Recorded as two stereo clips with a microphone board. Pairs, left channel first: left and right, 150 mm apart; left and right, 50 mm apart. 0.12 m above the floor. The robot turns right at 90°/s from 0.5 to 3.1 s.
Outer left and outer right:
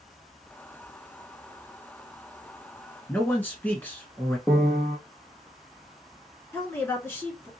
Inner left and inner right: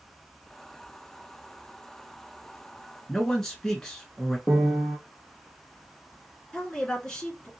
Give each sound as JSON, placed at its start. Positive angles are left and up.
{"t": 3.1, "sound": "a man speaking", "side_deg": 15, "distance_m": 1.2}
{"t": 4.5, "sound": "a piano", "side_deg": 5, "distance_m": 0.8}
{"t": 6.5, "sound": "a woman speaking", "side_deg": 15, "distance_m": 1.4}